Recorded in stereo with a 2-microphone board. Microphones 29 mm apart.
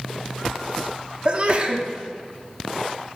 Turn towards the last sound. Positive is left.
turn(degrees=-35)  # may be behind; listen again after turning